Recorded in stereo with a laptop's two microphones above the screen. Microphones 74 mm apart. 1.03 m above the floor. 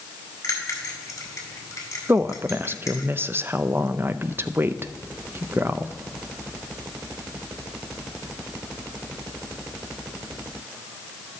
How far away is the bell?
About 2.5 m.